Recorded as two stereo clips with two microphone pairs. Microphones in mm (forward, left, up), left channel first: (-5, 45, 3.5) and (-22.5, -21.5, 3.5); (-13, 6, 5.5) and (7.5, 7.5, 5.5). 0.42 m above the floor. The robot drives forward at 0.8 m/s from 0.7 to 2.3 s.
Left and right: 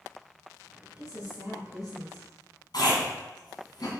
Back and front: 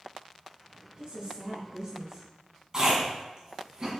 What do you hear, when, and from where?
1.0 s a woman speaking: 55° left, 3 m; by 2.3 s 80° left, 2.5 m
2.7 s chewing: 60° left, 2.5 m